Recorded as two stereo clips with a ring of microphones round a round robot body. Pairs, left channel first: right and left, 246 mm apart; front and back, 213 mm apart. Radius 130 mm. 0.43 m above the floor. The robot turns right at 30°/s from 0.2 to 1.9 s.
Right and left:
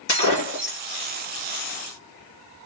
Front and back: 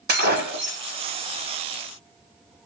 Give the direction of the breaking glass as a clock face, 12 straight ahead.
5 o'clock.